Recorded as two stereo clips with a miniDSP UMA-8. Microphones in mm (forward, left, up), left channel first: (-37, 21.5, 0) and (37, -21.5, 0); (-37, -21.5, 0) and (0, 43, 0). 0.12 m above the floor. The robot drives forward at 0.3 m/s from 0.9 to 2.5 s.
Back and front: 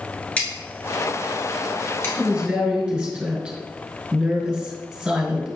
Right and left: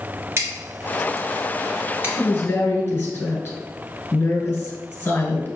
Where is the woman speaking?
90° right, 1.6 m; by 5.5 s 100° right, 1.6 m.